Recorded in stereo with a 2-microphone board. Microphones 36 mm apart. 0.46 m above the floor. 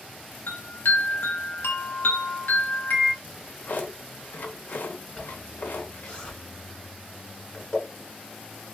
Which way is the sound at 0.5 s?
85° left.